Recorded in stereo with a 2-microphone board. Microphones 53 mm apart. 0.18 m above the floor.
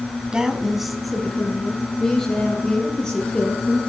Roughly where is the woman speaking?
Centre.